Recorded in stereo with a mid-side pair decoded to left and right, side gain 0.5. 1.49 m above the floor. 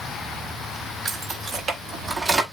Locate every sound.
1.1 s keys jangling: 40° right, 3 m; by 2.4 s 30° right, 2 m